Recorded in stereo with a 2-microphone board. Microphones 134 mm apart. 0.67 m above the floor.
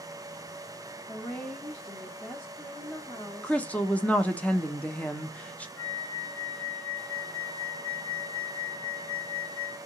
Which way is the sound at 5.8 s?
80° left.